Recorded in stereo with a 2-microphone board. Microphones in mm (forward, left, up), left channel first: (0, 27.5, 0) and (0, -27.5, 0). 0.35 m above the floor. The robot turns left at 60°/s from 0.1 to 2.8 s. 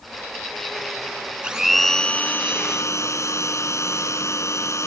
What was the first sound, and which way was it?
A blender, 165° right.